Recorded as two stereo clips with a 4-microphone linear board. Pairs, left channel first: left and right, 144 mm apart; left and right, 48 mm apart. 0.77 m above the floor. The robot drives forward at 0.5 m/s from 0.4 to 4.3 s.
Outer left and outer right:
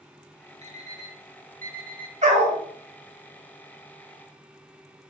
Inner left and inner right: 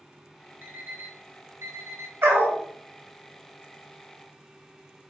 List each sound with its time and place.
0.6 s an alarm clock: 50° right (ahead or behind), 1.2 m; by 2.1 s 80° right, 1.0 m
2.2 s a dog barking: 55° right (ahead or behind), 1.3 m; by 2.6 s 45° right (ahead or behind), 1.4 m